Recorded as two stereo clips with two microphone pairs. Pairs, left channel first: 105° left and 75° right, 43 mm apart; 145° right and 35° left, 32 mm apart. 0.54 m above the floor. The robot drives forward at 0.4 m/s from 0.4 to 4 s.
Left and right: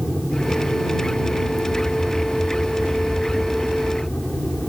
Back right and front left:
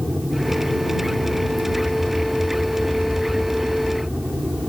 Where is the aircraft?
35° left.